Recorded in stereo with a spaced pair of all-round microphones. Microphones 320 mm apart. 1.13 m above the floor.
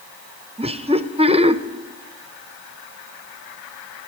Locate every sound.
0.6 s laughter: 20° right (ahead or behind), 0.7 m